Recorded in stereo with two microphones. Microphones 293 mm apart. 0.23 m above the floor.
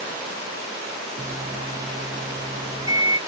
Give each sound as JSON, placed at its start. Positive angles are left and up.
{"t": 1.2, "sound": "a microwave", "side_deg": -15, "distance_m": 1.3}